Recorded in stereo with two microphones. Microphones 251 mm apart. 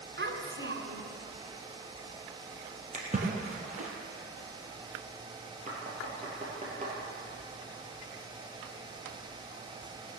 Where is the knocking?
30° right (ahead or behind), 4.5 m.